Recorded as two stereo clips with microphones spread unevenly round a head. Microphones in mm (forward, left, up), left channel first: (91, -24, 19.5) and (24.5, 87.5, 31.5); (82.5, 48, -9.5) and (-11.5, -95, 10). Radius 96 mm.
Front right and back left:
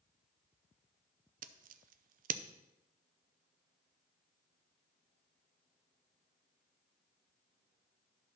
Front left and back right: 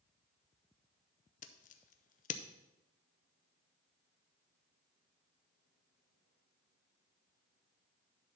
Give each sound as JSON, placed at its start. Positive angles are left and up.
{"t": 1.4, "sound": "scissors", "azimuth_deg": 110, "distance_m": 0.5}